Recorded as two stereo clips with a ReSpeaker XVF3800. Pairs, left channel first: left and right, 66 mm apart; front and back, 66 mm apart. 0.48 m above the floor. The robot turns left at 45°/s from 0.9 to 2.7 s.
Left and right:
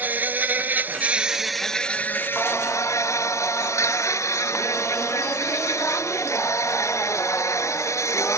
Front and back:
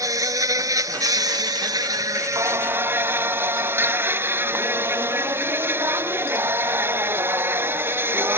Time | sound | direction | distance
0.0 | an insect | 150° right | ?
2.4 | singing | 160° left | ?